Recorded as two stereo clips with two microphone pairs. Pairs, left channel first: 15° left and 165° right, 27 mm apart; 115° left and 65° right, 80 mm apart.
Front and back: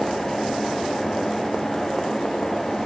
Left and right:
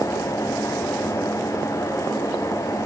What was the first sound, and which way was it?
Only background noise.